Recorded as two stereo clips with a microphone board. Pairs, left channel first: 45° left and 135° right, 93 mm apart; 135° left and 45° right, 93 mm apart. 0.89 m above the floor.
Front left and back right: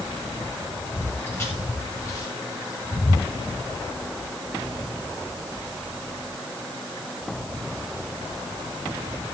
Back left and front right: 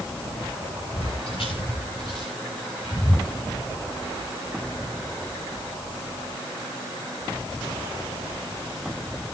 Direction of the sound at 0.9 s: 115° left.